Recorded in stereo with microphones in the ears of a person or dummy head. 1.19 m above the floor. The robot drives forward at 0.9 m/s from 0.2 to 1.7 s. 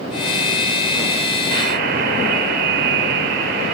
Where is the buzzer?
60° right (ahead or behind), 4.5 m; by 3.8 s 65° right (ahead or behind), 4 m.